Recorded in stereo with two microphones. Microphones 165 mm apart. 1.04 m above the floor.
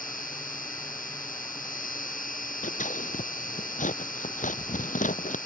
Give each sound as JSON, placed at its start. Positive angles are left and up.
{"t": 0.0, "sound": "an insect", "side_deg": 55}
{"t": 2.6, "sound": "scissors", "side_deg": 50}